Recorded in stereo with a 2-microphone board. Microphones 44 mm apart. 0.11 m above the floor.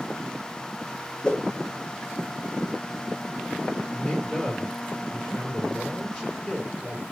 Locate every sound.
1.2 s a whoosh: 25° left (ahead or behind), 1.2 m
3.9 s a man speaking: 25° left (ahead or behind), 2 m